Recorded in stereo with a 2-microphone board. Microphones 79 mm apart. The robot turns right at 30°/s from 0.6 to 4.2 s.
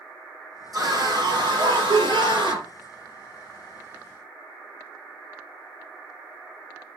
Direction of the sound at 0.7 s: 130° right.